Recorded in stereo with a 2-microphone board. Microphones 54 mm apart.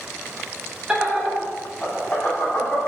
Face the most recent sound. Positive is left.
turn(degrees=50)  # may be behind; listen again after turning